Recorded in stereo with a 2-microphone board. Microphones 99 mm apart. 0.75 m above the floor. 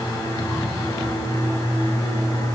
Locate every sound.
Only background noise.